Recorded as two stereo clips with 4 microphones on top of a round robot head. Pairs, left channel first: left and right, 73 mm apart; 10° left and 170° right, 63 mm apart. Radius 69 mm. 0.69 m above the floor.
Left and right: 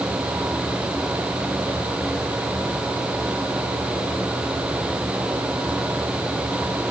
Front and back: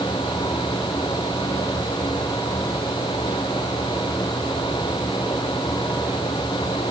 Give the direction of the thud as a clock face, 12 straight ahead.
No thud in this recording.